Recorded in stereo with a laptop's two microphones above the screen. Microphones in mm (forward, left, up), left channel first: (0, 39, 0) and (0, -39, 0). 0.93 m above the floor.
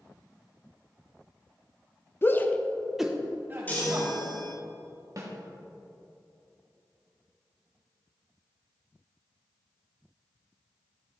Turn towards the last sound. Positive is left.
turn(degrees=-45)  # may be behind; listen again after turning